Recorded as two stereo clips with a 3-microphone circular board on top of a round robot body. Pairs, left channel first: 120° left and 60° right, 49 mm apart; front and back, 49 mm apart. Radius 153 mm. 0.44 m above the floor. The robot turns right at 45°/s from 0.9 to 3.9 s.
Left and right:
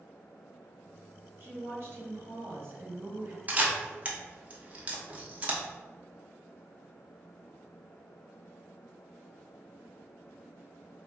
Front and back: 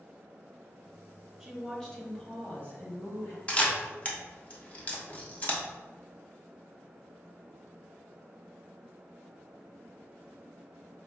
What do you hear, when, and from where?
1.4 s a woman speaking: 95° right, 1.6 m; by 3.4 s 5° right, 1.6 m
3.5 s a camera shutter: 45° right, 1.1 m; by 5.6 s 25° right, 1.1 m